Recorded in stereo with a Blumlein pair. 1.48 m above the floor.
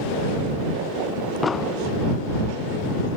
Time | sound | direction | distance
1.4 | an explosion | 15° left | ?